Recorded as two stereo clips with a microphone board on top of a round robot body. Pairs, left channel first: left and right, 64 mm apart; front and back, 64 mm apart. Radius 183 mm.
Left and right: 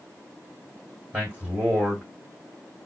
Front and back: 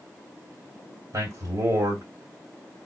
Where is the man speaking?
160° right, 3 m.